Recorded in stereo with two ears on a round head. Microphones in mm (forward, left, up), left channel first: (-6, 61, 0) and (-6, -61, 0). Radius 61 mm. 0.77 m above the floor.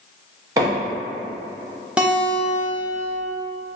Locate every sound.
0.6 s a microwave: 25° right (ahead or behind), 0.9 m
2.0 s a guitar: 5° right (ahead or behind), 0.6 m